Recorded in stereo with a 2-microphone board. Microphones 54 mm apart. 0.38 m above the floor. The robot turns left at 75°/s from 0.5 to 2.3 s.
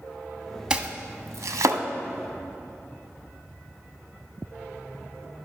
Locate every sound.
0.7 s chopping: 15° right (ahead or behind), 0.7 m; by 1.8 s 80° right, 0.7 m